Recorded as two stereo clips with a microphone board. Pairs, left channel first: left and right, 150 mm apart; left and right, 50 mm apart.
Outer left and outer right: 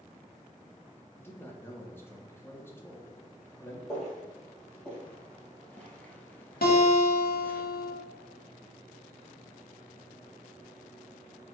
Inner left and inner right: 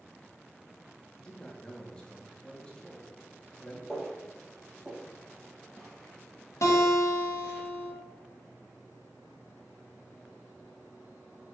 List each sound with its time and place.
1.1 s a man speaking: 15° left (ahead or behind), 1.0 m
3.9 s footsteps: 5° left (ahead or behind), 2 m; by 7.6 s 10° left (ahead or behind), 1.2 m
6.6 s a guitar: 85° left, 1.0 m